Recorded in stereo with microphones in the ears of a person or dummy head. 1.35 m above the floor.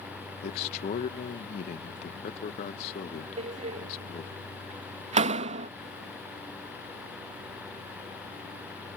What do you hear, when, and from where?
0.4 s a man speaking: 55° left (ahead or behind)
3.4 s a door slam: 45° right (ahead or behind)